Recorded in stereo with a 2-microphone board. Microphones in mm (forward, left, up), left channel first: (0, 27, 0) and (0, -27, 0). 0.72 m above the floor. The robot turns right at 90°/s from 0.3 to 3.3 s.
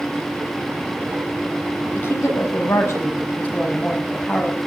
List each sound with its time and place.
1.9 s a woman speaking: 35° left, 5 m; by 4.6 s 155° left, 5 m